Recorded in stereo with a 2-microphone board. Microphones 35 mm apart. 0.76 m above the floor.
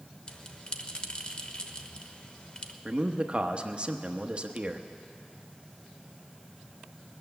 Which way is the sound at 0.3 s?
35° left (ahead or behind).